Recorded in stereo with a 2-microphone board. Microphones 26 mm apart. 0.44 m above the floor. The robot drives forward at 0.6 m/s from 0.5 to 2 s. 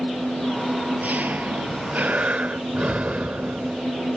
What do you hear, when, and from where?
0.0 s an engine running: 75° right (ahead or behind); by 4.2 s 85° right
1.7 s breathing: 55° right (ahead or behind); by 3.8 s 60° right (ahead or behind)